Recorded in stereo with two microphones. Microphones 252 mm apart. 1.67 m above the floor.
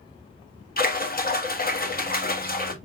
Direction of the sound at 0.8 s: 35° left (ahead or behind).